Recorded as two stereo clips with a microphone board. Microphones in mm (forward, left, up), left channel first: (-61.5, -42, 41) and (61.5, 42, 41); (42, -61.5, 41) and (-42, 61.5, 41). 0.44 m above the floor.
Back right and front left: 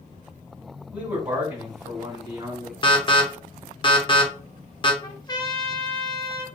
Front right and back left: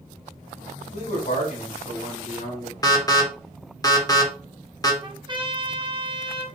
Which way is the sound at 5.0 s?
165° left.